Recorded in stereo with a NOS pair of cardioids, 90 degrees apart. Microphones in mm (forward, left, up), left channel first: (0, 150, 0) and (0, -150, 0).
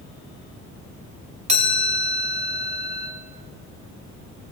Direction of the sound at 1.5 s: 20° right.